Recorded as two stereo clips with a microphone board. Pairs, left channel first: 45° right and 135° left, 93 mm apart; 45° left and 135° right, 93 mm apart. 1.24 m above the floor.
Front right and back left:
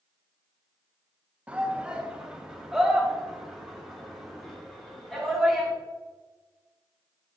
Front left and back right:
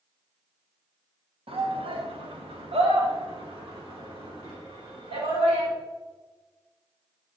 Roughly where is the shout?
Behind right.